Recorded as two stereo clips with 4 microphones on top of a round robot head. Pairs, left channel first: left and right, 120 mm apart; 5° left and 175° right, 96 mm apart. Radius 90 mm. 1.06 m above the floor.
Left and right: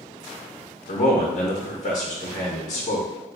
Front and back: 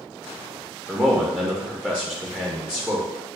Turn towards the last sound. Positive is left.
turn(degrees=110)